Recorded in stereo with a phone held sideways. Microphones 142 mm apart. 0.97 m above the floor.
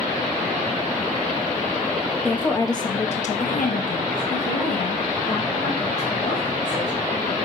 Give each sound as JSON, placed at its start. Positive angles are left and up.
{"t": 2.2, "sound": "a woman speaking", "side_deg": 10, "distance_m": 0.9}